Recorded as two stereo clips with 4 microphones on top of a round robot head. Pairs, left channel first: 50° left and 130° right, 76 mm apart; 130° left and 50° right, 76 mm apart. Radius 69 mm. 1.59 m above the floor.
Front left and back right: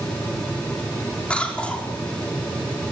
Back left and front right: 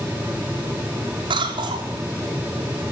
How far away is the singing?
No singing in this recording.